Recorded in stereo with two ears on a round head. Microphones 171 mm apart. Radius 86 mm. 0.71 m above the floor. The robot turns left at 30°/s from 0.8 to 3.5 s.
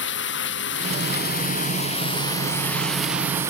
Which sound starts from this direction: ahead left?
Running water, at 0.0 s.